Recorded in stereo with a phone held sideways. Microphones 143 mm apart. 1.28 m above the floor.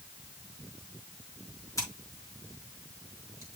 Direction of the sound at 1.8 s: 20° left (ahead or behind).